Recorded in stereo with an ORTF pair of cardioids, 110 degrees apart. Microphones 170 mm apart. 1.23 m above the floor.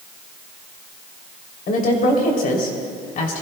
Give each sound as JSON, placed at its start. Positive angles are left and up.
{"t": 1.7, "sound": "a woman speaking", "azimuth_deg": 55, "distance_m": 3.0}